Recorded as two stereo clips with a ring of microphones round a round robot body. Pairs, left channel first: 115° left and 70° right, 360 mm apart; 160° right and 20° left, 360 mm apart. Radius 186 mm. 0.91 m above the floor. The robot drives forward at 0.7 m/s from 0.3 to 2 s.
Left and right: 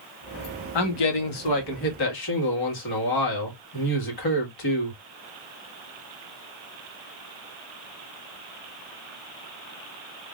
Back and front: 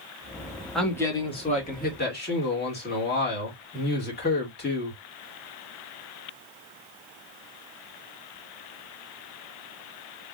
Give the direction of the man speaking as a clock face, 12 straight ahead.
8 o'clock.